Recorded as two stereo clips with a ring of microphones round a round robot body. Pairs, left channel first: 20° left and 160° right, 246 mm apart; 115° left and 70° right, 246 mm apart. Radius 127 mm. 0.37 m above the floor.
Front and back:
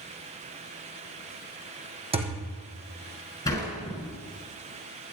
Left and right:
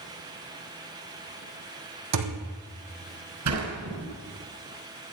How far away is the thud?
About 3 m.